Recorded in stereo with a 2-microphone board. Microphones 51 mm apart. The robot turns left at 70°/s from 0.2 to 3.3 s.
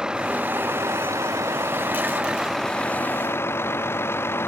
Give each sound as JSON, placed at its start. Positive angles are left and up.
{"t": 0.0, "sound": "a vehicle", "azimuth_deg": -15}